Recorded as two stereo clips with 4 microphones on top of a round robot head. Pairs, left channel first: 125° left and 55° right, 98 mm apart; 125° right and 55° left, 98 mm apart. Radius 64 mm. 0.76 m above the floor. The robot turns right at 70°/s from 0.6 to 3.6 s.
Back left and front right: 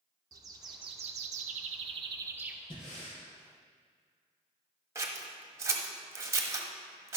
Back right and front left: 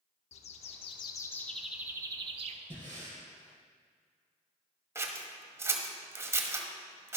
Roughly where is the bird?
Right.